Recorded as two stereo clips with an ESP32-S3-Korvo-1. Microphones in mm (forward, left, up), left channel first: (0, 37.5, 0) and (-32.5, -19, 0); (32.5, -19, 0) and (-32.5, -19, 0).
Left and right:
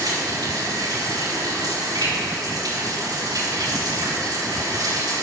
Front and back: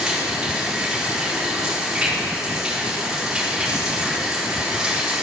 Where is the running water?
100° right, 4.5 m.